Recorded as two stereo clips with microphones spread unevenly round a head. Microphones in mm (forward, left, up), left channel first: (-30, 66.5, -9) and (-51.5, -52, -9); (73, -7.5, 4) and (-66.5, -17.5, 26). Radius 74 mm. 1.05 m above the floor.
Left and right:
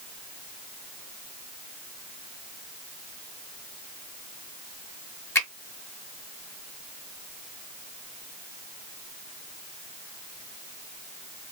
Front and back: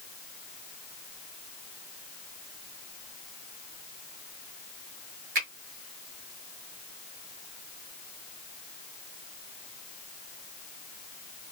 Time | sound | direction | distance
5.3 | a finger snap | 150° left | 1.9 m